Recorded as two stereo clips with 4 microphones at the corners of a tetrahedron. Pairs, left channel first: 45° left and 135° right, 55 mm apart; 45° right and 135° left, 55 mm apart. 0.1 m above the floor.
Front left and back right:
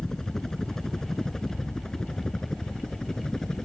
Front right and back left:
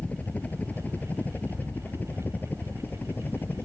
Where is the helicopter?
25° right; by 3.7 s 30° right.